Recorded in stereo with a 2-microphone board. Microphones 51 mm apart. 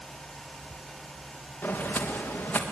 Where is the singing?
I don't hear singing.